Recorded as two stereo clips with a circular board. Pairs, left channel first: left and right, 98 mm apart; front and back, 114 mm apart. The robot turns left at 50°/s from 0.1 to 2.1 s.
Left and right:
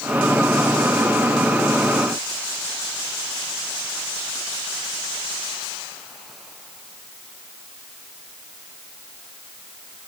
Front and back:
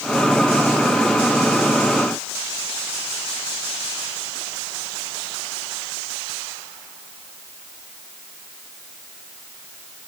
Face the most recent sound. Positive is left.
No sound to turn to.